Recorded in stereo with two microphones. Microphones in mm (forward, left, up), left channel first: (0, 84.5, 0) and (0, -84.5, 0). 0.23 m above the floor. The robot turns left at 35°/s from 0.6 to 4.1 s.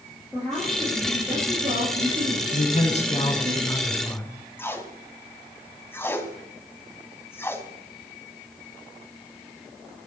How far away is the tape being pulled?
About 2 m.